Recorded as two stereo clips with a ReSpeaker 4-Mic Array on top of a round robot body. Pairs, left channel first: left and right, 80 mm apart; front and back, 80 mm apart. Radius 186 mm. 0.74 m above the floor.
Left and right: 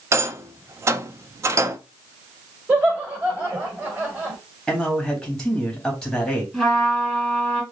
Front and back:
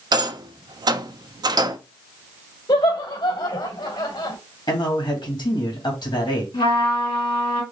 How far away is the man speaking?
About 2.5 m.